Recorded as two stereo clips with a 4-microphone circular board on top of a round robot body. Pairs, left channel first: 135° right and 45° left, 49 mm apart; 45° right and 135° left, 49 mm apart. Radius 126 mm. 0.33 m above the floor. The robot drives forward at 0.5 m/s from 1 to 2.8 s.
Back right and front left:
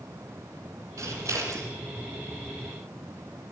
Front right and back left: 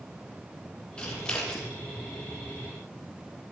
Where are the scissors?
25° left, 6.5 m.